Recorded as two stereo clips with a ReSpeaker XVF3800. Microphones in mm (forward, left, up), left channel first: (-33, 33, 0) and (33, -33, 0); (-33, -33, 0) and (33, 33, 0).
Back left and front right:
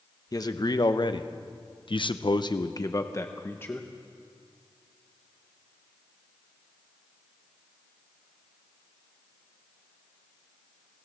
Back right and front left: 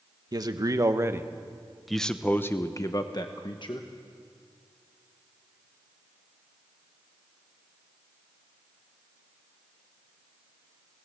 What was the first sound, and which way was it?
A man speaking, 90° left.